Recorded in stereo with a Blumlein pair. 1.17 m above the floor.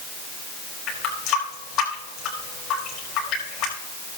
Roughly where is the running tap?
Ahead left.